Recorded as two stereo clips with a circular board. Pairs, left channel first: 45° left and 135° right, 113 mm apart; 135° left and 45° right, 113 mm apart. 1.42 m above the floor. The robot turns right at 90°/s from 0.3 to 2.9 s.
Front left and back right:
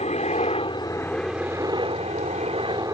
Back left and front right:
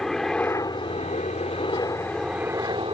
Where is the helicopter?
50° left; by 2.9 s 80° right.